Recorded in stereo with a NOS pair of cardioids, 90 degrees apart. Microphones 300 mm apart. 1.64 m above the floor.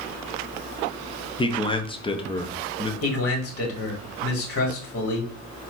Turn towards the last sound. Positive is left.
turn(degrees=50)